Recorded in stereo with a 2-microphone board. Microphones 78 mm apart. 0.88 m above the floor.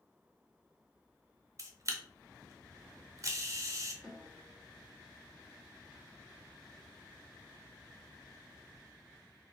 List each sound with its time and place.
1.6 s a camera shutter: 40° right (ahead or behind), 0.6 m
4.0 s a snare drum: 5° left (ahead or behind), 1.5 m